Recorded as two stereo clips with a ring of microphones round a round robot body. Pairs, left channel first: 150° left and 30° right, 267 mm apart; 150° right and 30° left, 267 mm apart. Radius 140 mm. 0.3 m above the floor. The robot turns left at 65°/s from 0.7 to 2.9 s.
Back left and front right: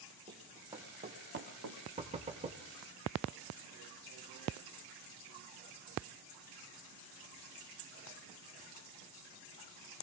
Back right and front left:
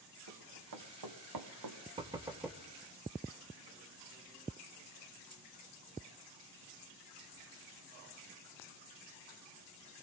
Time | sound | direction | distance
0.3 | running footsteps | 40° left | 2 m
2.0 | knocking | 10° right | 0.9 m